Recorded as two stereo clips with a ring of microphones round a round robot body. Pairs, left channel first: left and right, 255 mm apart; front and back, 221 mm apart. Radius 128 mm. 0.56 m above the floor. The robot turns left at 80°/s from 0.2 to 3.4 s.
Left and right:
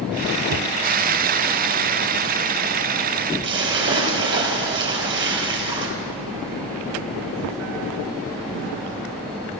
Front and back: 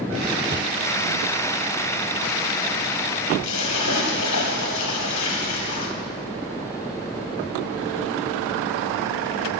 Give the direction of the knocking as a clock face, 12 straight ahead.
4 o'clock.